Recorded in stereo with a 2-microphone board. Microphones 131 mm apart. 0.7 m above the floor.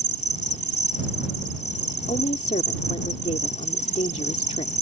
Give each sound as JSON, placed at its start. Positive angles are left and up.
{"t": 0.0, "sound": "an insect", "side_deg": 65}
{"t": 2.1, "sound": "a woman speaking", "side_deg": 60}